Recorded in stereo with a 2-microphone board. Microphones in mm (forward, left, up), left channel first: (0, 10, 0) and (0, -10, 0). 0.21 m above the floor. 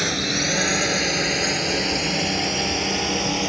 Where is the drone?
10° right (ahead or behind); by 3.5 s 5° right (ahead or behind).